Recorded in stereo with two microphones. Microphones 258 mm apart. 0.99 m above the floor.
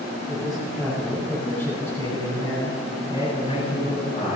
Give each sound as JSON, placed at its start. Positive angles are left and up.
{"t": 0.3, "sound": "a man speaking", "side_deg": -5, "distance_m": 7.0}